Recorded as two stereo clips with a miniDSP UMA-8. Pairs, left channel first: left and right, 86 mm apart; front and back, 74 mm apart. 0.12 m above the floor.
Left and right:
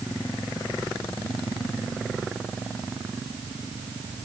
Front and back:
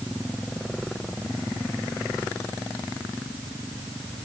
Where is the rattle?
I don't hear a rattle.